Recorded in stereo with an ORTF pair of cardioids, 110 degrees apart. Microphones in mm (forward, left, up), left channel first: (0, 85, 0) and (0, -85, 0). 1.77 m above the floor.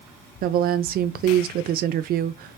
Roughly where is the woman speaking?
Ahead right.